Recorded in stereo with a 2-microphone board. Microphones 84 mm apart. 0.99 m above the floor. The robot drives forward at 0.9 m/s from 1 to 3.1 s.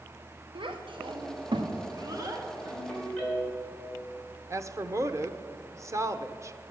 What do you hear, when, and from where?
0.6 s a child speaking: 80° right, 1.1 m; by 2.5 s 40° right (ahead or behind), 1.6 m
2.6 s a ringtone: 10° left (ahead or behind), 5.5 m
4.5 s a woman speaking: 35° right (ahead or behind), 0.6 m